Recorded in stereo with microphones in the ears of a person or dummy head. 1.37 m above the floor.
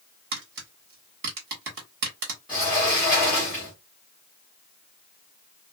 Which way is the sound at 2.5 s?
Centre (ahead or behind).